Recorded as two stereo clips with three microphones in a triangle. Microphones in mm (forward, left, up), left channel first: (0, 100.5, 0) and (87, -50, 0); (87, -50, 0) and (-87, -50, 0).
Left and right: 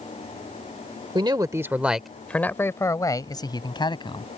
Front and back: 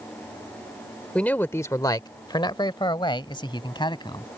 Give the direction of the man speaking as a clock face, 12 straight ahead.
3 o'clock.